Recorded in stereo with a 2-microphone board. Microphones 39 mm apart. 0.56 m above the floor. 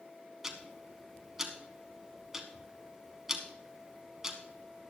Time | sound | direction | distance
0.4 | ticking | 10° right (ahead or behind) | 1.4 m